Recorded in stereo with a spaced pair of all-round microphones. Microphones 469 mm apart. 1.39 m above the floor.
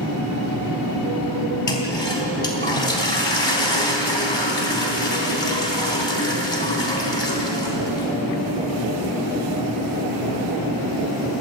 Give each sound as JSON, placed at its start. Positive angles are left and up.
{"t": 1.7, "sound": "a toilet flushing", "side_deg": 65, "distance_m": 4.0}